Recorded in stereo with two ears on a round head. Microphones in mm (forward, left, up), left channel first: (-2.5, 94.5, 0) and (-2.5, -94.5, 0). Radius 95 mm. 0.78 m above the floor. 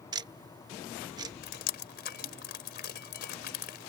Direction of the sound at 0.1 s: 20° right (ahead or behind).